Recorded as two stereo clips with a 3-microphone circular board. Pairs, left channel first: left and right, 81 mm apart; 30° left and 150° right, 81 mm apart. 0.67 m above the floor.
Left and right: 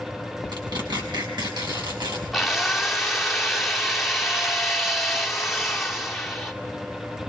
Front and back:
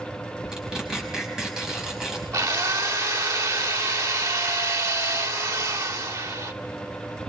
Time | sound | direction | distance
0.5 | tearing paper | 70° right | 5.5 m
2.3 | a drill | straight behind | 1.9 m